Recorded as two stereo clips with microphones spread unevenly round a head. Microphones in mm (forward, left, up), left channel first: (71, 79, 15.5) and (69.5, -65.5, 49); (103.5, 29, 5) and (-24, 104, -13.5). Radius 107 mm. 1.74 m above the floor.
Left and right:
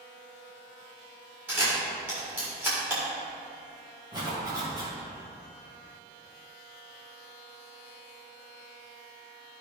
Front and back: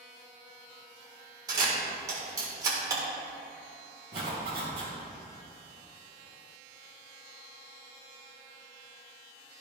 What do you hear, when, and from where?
1.5 s a camera shutter: 145° right, 1.6 m
4.1 s a zipper: 150° right, 2.5 m